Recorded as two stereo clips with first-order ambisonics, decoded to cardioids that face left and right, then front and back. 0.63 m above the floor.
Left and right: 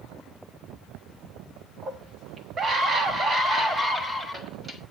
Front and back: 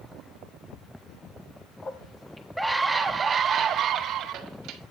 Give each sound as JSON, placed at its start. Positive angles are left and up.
{"t": 1.8, "sound": "a scream", "azimuth_deg": -50, "distance_m": 1.3}